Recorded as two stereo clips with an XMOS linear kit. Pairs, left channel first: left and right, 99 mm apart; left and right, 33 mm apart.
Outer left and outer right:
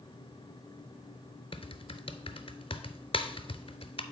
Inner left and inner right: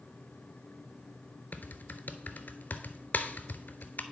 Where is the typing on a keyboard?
70° left (ahead or behind), 0.5 m.